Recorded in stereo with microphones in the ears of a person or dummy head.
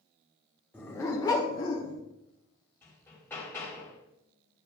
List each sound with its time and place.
0.7 s a dog barking: 15° left (ahead or behind), 1.2 m; by 2.0 s 40° left (ahead or behind), 1.1 m
2.8 s hammering: 15° left (ahead or behind), 2.5 m